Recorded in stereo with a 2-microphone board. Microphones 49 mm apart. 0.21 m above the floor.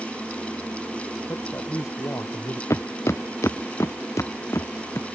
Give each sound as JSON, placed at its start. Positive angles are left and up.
{"t": 1.3, "sound": "a man speaking", "side_deg": 75}
{"t": 2.7, "sound": "footsteps", "side_deg": 75}